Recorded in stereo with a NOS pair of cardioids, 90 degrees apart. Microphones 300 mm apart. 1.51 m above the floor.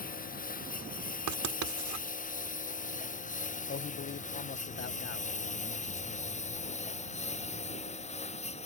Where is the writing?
70° right.